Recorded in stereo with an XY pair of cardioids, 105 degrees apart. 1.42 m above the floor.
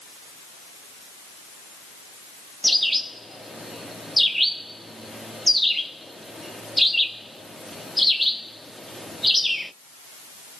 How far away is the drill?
No drill in this recording.